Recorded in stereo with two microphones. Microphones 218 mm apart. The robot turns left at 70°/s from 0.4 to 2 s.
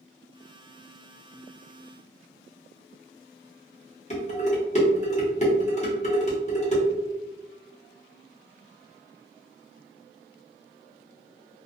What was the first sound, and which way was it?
Dishes clattering, 30° left (ahead or behind).